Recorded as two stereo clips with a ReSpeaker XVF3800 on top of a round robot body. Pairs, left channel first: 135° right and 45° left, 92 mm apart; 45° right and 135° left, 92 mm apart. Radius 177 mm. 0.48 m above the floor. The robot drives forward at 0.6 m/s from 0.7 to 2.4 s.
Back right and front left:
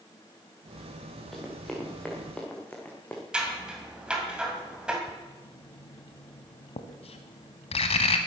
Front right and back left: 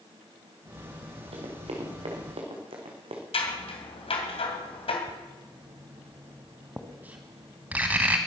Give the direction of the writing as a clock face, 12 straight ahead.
5 o'clock.